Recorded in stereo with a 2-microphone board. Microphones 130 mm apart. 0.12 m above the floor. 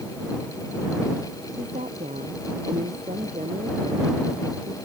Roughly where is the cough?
I don't hear a cough.